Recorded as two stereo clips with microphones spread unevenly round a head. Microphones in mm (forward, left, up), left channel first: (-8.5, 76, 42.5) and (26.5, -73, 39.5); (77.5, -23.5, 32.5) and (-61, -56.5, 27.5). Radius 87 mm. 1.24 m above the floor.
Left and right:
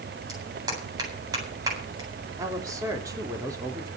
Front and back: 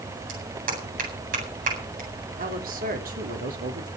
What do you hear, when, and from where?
0.3 s a clap: 145° right, 8.5 m
2.4 s a man speaking: 145° right, 3.5 m